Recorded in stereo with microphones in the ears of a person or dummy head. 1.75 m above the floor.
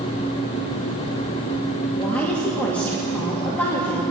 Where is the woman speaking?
5° left (ahead or behind), 2.5 m.